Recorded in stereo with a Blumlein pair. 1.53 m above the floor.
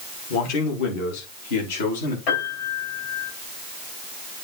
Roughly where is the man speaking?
Ahead left.